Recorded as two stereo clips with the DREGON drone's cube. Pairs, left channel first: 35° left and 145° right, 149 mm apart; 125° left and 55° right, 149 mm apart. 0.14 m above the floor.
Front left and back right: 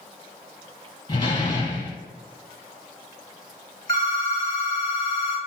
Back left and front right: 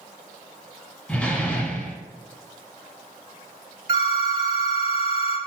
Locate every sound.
1.1 s a door slam: 50° left, 0.9 m
3.9 s a phone ringing: 20° right, 1.1 m